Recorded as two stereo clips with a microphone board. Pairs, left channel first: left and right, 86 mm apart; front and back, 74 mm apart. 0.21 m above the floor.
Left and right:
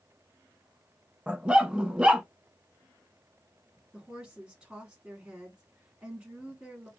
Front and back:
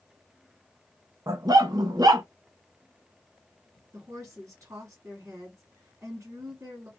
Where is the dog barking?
170° right, 0.6 m.